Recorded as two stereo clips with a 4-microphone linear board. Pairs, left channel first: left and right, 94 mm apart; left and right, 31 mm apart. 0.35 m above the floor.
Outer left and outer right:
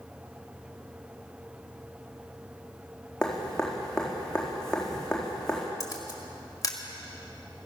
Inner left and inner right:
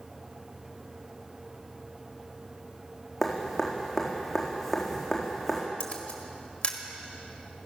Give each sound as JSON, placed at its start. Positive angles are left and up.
{"t": 3.2, "sound": "dripping", "side_deg": 5, "distance_m": 4.0}
{"t": 5.8, "sound": "a camera shutter", "side_deg": 40, "distance_m": 1.5}